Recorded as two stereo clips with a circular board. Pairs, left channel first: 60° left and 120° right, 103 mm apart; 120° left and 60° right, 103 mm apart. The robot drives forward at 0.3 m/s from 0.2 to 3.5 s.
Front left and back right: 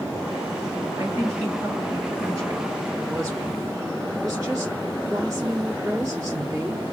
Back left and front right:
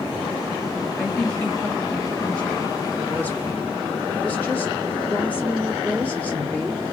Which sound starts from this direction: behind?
A woman speaking, at 1.0 s.